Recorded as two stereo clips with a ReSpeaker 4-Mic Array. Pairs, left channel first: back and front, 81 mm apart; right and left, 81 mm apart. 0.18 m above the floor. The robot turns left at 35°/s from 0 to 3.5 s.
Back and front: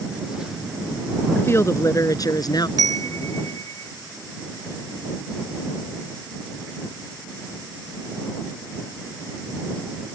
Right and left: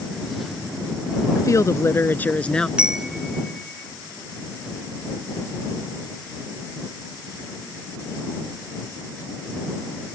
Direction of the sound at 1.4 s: 125° right.